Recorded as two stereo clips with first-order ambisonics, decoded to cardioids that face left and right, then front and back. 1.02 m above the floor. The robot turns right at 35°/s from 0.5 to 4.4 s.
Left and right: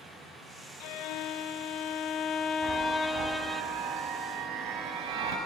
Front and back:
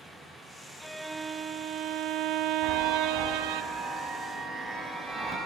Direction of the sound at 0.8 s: 85° left.